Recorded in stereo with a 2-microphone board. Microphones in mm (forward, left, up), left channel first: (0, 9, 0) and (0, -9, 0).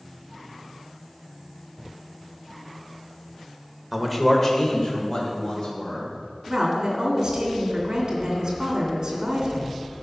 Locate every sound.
3.9 s a man speaking: 10° right (ahead or behind), 1.4 m; by 6.1 s 70° left (ahead or behind), 3.5 m
6.5 s a woman speaking: 35° right (ahead or behind), 3 m